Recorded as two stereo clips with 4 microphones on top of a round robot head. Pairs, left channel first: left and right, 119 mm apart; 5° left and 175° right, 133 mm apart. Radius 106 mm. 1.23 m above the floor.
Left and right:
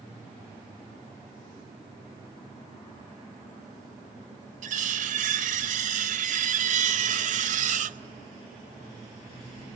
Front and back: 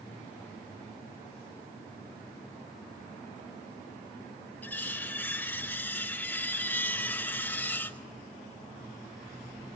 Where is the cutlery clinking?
80° right, 0.7 m.